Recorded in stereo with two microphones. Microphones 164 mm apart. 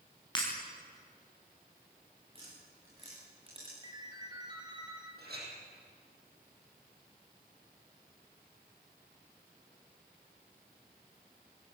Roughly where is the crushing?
No crushing in this recording.